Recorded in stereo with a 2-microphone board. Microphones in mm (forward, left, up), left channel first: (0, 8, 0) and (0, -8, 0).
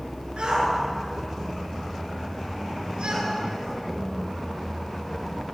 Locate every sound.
0.4 s a shout: 75° right (ahead or behind), 8.5 m